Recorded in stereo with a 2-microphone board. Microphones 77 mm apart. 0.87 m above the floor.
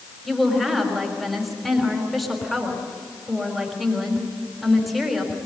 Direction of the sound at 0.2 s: Centre (ahead or behind).